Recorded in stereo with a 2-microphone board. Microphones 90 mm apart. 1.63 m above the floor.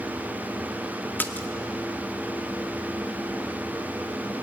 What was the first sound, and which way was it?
A splash, 20° left (ahead or behind).